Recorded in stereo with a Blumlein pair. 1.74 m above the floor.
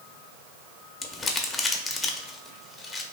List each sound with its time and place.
1.0 s crumpling: 15° left, 0.6 m